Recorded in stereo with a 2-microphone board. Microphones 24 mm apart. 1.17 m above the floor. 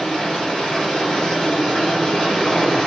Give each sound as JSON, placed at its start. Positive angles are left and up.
{"t": 0.0, "sound": "running water", "side_deg": 40, "distance_m": 1.3}